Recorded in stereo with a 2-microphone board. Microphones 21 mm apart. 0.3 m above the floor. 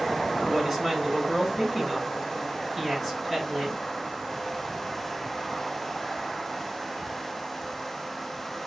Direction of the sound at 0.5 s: 5° left (ahead or behind).